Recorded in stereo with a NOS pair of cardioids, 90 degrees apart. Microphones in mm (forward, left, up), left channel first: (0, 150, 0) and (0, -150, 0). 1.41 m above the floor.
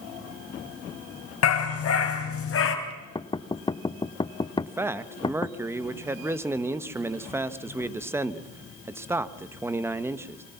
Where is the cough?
I don't hear a cough.